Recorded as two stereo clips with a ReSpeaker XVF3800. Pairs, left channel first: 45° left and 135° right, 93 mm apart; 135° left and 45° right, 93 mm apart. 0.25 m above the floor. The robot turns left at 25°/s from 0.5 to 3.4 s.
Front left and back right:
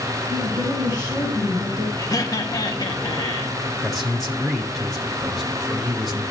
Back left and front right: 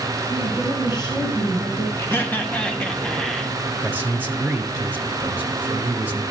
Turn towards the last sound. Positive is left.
turn(degrees=-40)